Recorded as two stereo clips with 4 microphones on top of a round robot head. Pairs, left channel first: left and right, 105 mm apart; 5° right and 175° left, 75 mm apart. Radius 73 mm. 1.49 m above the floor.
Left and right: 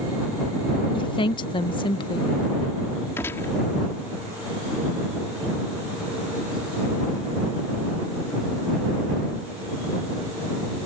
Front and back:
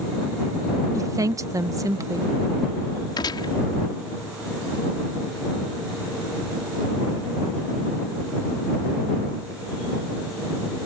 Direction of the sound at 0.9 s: 130° left.